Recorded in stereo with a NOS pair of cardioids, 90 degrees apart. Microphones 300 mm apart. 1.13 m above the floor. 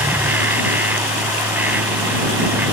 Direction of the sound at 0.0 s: 5° right.